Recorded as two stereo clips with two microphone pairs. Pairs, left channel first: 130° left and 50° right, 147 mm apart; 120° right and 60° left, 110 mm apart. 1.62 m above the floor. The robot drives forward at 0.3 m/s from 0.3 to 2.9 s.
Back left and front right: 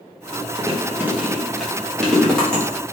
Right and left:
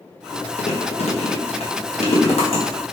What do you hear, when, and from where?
0.6 s chewing: 115° right, 0.6 m; by 2.6 s 150° right, 1.0 m